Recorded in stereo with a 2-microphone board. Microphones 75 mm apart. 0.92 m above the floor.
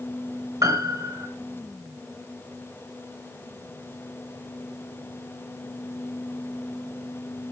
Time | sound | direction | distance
0.6 | a piano | 50° right (ahead or behind) | 4.5 m